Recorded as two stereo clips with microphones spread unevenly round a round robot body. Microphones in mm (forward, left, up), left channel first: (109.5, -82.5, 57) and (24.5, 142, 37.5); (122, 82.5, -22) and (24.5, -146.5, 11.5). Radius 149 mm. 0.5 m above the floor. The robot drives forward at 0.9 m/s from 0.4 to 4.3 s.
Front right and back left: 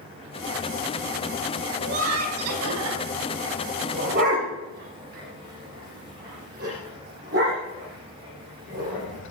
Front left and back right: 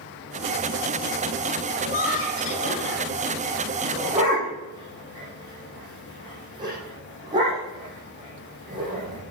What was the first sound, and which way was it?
Laughter, 125° left.